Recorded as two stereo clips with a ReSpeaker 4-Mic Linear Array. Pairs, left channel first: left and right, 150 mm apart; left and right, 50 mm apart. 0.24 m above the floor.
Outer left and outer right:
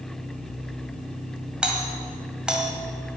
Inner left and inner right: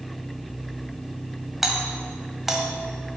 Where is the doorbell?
5° right (ahead or behind), 1.7 m.